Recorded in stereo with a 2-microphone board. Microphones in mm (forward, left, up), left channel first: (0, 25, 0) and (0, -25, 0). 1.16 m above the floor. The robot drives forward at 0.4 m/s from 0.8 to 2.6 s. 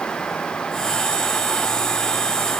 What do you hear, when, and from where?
Only background noise.